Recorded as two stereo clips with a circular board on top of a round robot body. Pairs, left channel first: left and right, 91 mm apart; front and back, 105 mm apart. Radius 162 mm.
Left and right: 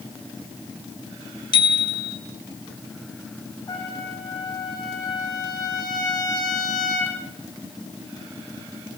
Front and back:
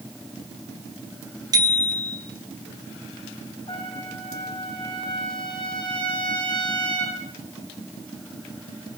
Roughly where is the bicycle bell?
Behind left.